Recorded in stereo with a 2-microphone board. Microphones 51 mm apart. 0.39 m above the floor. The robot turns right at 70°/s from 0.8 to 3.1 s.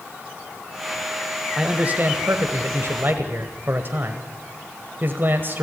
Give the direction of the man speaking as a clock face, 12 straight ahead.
5 o'clock.